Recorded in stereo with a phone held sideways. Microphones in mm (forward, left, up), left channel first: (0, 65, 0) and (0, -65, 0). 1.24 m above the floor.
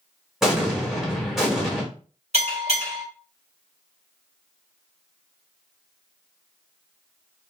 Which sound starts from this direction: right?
A bell, at 2.3 s.